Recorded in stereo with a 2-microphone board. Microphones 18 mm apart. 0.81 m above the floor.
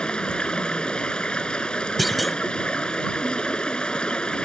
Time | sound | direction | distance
0.0 | running water | 65° left (ahead or behind) | ?
2.0 | a clunk | centre (ahead or behind) | ?